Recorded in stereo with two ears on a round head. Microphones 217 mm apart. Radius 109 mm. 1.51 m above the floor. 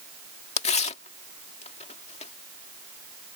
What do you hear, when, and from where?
0.6 s tearing paper: 25° left (ahead or behind)